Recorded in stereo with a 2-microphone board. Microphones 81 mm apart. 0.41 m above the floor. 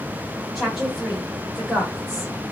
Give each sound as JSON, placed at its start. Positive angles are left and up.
{"t": 0.6, "sound": "a woman speaking", "side_deg": -5, "distance_m": 1.7}